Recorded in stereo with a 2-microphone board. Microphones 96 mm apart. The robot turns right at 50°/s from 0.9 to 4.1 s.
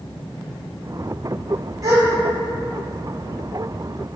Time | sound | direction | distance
1.8 | a gasp | 35° right (ahead or behind) | 2.5 m